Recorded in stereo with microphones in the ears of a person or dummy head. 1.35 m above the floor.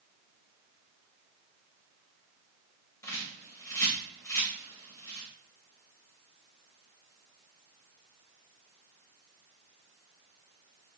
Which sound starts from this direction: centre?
A bird, at 3.0 s.